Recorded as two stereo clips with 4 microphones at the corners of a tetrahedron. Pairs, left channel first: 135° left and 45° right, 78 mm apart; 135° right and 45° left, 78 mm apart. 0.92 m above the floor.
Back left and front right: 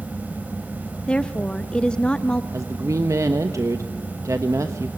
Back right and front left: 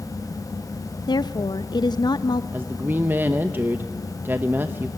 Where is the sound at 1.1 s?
150° right, 0.6 m.